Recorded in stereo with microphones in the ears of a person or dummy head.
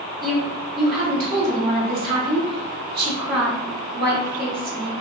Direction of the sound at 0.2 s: 50° right (ahead or behind).